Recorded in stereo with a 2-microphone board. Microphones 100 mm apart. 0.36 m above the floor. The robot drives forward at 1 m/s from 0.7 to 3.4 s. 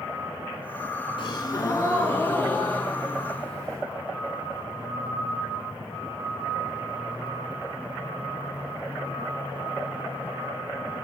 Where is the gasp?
60° left (ahead or behind), 0.7 m; by 3.8 s 15° left (ahead or behind), 2.5 m.